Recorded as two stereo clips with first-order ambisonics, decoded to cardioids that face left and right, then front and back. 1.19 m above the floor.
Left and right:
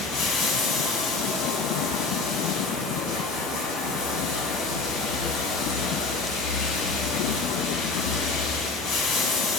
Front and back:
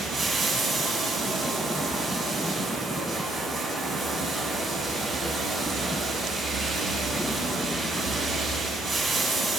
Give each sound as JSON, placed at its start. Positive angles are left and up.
{"t": 0.0, "sound": "running water", "azimuth_deg": 100, "distance_m": 1.9}